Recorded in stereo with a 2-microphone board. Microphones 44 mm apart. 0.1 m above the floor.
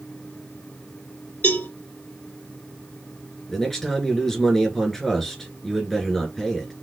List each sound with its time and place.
1.4 s a cowbell: 50° left (ahead or behind), 2.5 m
3.5 s a man speaking: 5° left (ahead or behind), 1.5 m